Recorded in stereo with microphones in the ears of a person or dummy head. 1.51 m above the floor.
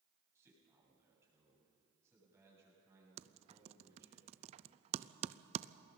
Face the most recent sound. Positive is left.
turn(degrees=-35)  # may be behind; listen again after turning